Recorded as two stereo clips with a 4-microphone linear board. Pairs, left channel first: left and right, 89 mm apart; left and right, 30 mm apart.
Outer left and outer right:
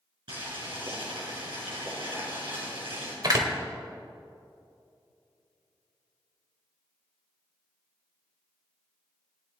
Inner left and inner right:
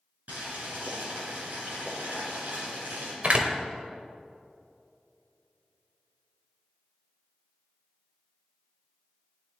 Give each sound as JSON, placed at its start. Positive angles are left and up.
{"t": 0.3, "sound": "boiling", "side_deg": -75, "distance_m": 4.5}
{"t": 3.2, "sound": "a door slam", "side_deg": -50, "distance_m": 1.3}